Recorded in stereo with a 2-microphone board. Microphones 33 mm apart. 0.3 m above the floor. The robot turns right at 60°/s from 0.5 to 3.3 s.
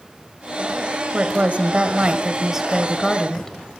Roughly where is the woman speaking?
Right.